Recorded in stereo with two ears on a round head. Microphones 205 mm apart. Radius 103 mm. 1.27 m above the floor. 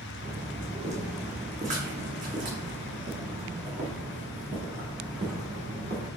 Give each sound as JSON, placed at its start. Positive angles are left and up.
{"t": 0.2, "sound": "footsteps", "side_deg": -25, "distance_m": 3.0}